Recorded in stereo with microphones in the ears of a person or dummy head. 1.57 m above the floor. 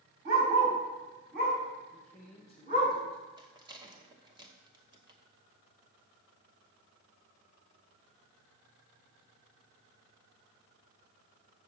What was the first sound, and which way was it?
A dog barking, 50° right (ahead or behind).